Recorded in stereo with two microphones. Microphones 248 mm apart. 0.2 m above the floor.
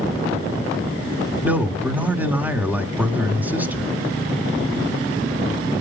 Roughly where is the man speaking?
Centre.